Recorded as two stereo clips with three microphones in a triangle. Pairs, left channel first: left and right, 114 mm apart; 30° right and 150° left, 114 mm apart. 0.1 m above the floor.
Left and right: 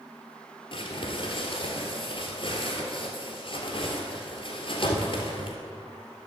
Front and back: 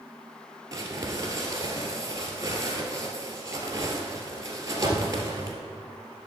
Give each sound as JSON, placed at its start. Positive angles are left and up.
{"t": 0.7, "sound": "crumpling", "azimuth_deg": 100, "distance_m": 1.7}